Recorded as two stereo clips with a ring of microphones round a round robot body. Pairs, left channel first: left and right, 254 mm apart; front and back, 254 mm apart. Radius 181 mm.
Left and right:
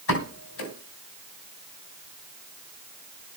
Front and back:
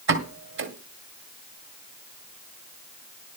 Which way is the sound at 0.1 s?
140° left.